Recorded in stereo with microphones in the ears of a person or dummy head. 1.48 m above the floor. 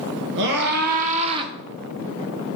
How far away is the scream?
About 1.5 m.